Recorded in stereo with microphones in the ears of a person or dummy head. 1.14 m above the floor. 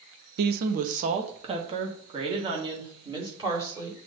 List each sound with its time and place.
0.4 s a woman speaking: 60° right (ahead or behind), 0.7 m; by 4.0 s 25° right (ahead or behind), 3 m